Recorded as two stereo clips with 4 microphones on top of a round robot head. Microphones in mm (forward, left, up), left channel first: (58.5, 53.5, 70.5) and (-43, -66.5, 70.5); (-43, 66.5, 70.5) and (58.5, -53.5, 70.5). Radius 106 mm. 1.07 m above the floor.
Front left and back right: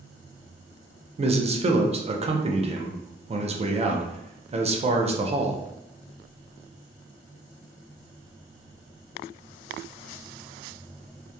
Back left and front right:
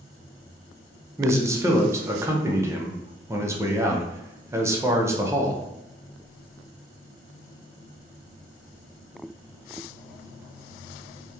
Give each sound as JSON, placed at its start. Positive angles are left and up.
{"t": 1.2, "sound": "a man speaking", "azimuth_deg": -115, "distance_m": 0.6}